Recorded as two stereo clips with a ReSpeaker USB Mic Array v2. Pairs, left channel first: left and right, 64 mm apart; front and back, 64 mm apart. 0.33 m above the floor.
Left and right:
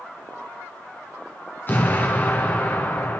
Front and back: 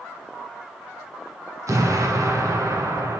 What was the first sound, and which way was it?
An explosion, 150° left.